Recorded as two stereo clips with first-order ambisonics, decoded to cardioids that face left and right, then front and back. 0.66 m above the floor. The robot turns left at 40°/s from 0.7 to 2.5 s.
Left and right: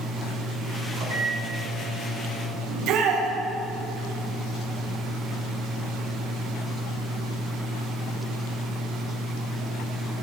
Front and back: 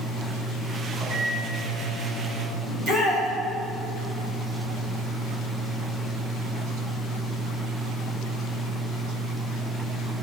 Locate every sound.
1.0 s a microwave: 125° right, 3 m; by 2.6 s 175° left, 3 m
2.7 s a shout: 120° right, 4 m